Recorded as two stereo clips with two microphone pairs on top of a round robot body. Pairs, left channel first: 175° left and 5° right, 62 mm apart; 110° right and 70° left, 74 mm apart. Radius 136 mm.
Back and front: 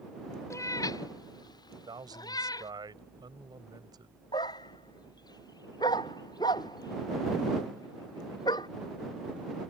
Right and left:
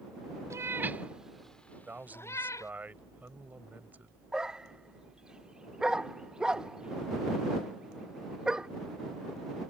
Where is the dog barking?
150° left.